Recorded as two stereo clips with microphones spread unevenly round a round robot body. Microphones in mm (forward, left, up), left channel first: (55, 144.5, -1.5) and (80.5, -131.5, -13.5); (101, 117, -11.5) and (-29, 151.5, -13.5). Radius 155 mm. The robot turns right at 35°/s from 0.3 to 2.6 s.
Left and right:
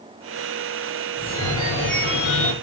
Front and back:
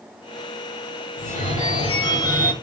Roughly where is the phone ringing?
Ahead.